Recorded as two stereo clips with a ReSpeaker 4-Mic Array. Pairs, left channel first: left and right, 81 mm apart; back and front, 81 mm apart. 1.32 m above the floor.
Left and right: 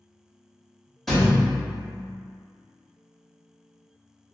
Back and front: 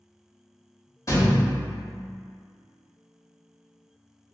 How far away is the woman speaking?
No woman speaking in this recording.